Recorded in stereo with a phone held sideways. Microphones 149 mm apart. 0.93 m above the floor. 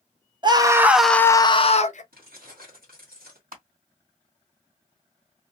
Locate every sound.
0.4 s a scream: 30° right (ahead or behind), 0.7 m; by 2.0 s 55° left (ahead or behind), 0.7 m
2.1 s keys jangling: 80° right, 1.3 m
3.5 s crushing: 75° right (ahead or behind), 1.9 m